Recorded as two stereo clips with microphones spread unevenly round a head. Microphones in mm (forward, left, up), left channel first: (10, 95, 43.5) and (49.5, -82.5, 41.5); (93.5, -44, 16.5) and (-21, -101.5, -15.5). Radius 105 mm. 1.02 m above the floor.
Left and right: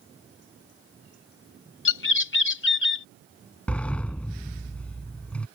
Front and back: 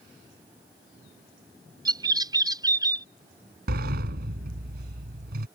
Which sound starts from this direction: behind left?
A bird, at 1.9 s.